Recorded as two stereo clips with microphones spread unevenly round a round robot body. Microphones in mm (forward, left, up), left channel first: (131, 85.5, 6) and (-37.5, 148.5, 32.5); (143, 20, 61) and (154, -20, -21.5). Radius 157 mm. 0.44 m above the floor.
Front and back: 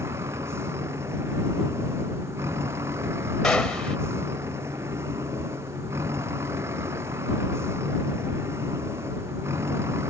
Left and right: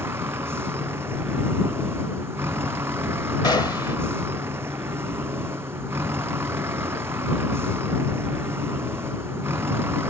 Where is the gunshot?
60° left.